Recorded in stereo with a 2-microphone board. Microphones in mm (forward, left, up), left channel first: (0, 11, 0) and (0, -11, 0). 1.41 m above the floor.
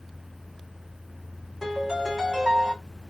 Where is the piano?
25° right (ahead or behind), 3 m.